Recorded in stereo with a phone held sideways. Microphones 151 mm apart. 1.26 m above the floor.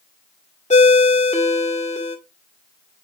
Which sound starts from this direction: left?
A ringtone, at 0.7 s.